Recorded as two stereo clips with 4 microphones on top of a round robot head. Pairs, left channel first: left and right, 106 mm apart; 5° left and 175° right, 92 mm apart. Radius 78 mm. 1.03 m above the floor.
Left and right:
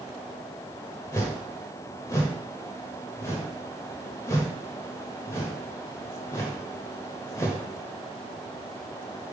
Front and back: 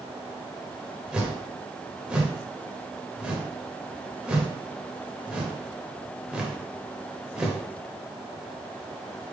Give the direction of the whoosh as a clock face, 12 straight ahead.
8 o'clock.